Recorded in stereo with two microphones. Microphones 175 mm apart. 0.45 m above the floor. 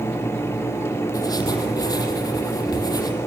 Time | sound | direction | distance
1.1 | writing | 20° left (ahead or behind) | 5 m